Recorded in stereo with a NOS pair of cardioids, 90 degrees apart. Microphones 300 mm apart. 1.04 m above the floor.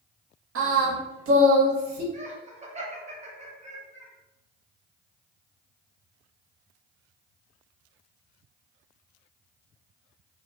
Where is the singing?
50° right, 0.8 m.